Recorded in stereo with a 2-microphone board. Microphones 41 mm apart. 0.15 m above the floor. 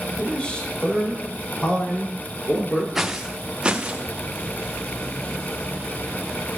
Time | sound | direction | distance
0.2 | a man speaking | 25° left (ahead or behind) | 7 m
3.0 | footsteps | 10° right (ahead or behind) | 1.3 m